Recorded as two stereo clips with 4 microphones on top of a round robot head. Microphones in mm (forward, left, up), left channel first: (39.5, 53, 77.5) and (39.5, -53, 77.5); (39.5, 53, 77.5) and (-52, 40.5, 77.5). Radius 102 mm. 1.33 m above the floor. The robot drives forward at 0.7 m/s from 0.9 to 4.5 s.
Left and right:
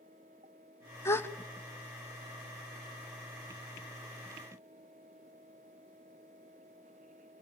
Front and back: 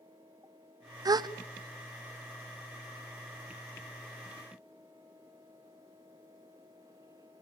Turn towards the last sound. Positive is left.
turn(degrees=175)